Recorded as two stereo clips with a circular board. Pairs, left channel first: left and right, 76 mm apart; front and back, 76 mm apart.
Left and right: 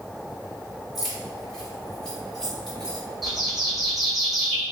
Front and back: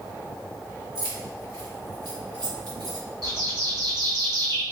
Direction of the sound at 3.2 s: 175° right.